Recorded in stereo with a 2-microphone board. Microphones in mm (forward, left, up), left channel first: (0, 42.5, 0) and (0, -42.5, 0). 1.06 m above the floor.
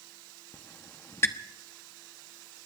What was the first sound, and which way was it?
A squeak, 30° left (ahead or behind).